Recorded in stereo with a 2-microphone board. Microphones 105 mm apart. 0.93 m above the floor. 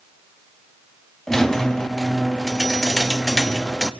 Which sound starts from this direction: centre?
A squeak, at 1.3 s.